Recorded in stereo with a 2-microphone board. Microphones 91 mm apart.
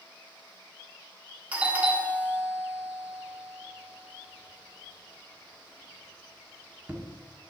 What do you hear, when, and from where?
1.5 s a doorbell: 15° right (ahead or behind), 1.3 m